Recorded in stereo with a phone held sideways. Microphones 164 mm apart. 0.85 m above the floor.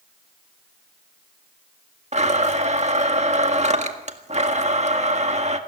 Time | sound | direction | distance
2.1 | a blender | 45° right (ahead or behind) | 1.7 m